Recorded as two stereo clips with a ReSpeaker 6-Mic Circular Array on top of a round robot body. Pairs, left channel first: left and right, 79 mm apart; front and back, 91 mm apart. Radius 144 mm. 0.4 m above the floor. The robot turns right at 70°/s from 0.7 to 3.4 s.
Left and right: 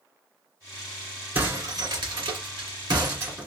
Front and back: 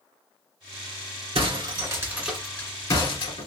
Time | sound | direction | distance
1.4 | breaking glass | 165° right | 1.9 m